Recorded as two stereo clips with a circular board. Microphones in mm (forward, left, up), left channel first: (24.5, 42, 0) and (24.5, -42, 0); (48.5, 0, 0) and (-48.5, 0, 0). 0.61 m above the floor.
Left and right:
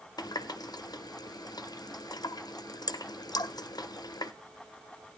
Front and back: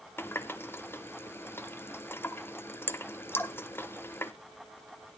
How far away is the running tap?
About 0.6 m.